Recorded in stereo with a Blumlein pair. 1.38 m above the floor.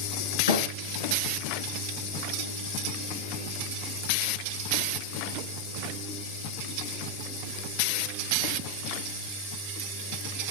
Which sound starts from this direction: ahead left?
A thud, at 0.5 s.